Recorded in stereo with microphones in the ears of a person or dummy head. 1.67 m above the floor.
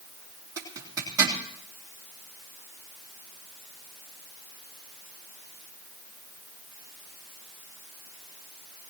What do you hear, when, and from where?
0.6 s a zipper: 20° right (ahead or behind), 3 m